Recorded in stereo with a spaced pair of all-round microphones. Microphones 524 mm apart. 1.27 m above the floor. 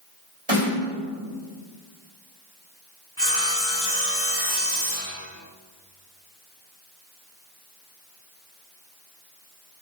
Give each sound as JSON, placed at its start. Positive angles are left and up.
{"t": 0.5, "sound": "a snare drum", "side_deg": -65, "distance_m": 3.0}
{"t": 3.2, "sound": "sawing", "side_deg": -25, "distance_m": 2.0}